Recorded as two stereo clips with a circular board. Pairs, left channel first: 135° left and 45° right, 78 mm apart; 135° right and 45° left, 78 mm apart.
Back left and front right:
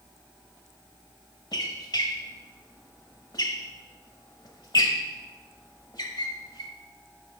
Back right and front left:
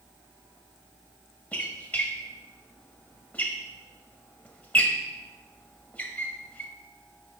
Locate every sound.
1.5 s a squeak: 155° left, 1.0 m